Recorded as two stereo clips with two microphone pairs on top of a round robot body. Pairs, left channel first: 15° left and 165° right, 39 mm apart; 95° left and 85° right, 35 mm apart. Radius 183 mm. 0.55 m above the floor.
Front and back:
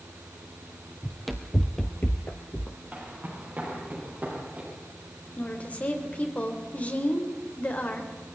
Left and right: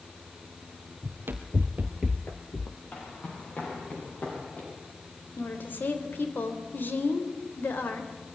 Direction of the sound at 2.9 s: 140° left.